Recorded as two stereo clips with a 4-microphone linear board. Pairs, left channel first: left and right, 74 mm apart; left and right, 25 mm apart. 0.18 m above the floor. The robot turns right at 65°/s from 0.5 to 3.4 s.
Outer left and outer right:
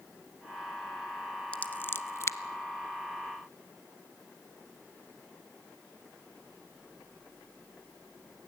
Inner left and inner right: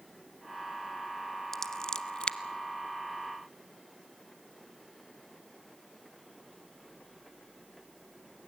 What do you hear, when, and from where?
1.5 s scissors: 15° left (ahead or behind), 0.8 m; by 2.4 s 40° left (ahead or behind), 0.8 m